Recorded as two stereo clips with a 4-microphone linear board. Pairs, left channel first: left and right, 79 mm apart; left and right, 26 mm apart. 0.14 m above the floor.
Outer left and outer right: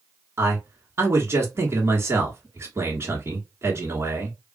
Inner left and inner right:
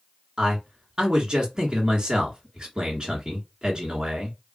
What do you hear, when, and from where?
0.4 s a man speaking: 30° right (ahead or behind), 1.4 m